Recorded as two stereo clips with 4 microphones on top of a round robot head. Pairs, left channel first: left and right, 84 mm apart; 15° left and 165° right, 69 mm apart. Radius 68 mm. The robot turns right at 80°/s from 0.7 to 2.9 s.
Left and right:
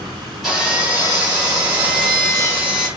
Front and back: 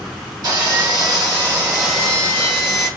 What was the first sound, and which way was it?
Sawing, straight behind.